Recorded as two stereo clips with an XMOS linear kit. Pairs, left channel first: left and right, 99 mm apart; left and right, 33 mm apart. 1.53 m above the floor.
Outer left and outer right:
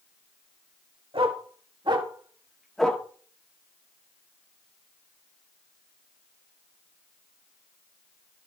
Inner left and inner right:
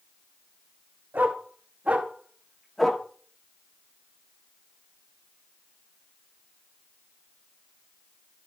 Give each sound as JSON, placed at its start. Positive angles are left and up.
{"t": 1.1, "sound": "a dog barking", "side_deg": -65, "distance_m": 2.5}